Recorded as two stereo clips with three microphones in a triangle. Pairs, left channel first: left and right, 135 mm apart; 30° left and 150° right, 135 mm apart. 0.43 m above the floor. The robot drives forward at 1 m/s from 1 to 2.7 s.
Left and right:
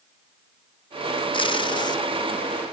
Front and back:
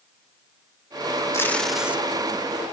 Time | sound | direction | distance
1.3 | tape being pulled | 85° left | 0.9 m